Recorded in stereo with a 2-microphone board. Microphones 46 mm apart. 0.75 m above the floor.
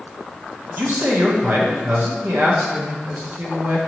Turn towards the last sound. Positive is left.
turn(degrees=-50)  # may be behind; listen again after turning